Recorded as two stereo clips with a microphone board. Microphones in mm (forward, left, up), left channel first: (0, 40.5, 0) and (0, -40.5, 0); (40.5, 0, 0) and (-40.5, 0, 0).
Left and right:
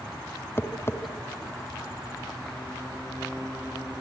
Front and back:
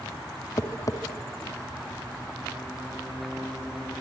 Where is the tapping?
35° left, 1.7 m.